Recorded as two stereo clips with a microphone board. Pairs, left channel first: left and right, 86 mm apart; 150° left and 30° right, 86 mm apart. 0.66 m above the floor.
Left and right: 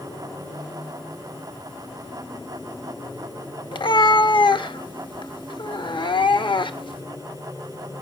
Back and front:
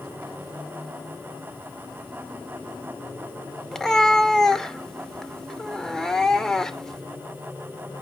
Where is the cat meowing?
65° left, 0.7 m.